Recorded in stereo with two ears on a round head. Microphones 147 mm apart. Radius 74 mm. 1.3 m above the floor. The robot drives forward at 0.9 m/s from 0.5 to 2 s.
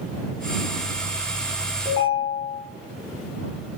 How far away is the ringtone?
About 1.0 m.